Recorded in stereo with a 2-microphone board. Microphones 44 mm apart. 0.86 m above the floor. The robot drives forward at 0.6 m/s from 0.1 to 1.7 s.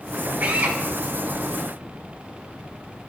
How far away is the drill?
About 2.5 m.